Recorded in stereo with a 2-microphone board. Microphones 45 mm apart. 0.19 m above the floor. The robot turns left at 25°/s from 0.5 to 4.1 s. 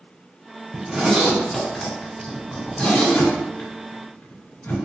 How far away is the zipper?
About 1.4 m.